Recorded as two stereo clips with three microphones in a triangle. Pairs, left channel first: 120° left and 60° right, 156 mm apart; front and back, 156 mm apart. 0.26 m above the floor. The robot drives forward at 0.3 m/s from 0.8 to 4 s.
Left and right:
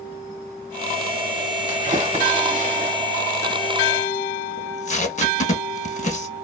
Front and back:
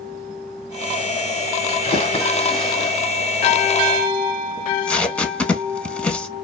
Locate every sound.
1.7 s a splash: 35° right, 1.3 m; by 3.0 s 45° right, 1.1 m
4.6 s tape being pulled: 85° left, 0.5 m